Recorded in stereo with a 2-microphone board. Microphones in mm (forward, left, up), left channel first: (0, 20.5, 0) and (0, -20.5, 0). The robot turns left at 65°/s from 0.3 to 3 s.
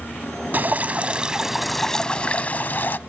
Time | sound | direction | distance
0.5 | dripping | 110° right | 0.6 m